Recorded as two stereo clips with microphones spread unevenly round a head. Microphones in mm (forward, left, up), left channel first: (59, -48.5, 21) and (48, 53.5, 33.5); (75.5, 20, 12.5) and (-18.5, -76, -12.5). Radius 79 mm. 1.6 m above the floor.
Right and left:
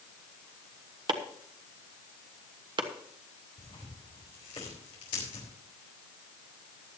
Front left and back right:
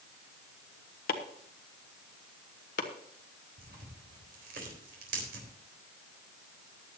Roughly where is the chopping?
Ahead left.